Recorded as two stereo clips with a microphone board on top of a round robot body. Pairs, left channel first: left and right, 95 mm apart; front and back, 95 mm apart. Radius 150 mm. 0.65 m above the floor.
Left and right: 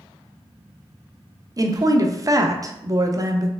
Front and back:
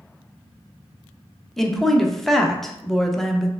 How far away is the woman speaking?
About 0.6 m.